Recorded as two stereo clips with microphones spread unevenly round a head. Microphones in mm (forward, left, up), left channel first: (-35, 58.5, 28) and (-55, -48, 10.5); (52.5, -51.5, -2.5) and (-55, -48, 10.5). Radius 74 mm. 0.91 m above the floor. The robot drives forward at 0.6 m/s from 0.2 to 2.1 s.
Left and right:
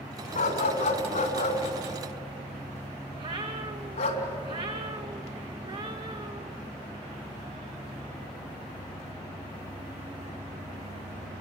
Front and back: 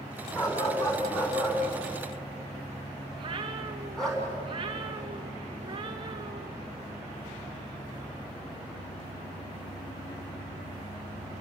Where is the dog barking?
70° left, 4 m; by 4.2 s 85° left, 3.5 m.